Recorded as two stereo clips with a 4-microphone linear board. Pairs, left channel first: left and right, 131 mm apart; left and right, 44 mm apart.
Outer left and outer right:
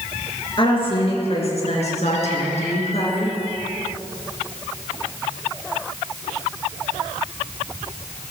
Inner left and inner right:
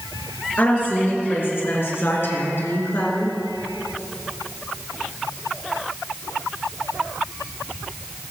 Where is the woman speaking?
40° left (ahead or behind), 4 m; by 3.4 s 50° left (ahead or behind), 3.5 m.